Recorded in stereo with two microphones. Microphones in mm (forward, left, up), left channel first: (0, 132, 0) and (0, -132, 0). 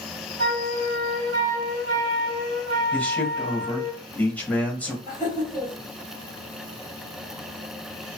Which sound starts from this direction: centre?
A man speaking, at 2.9 s.